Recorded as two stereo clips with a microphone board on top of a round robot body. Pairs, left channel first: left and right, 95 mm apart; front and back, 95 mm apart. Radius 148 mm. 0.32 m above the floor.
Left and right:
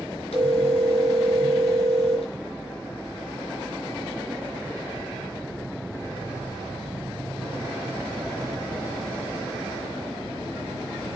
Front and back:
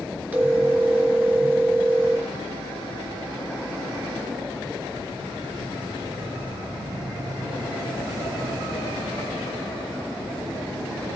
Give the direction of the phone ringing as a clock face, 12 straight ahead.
8 o'clock.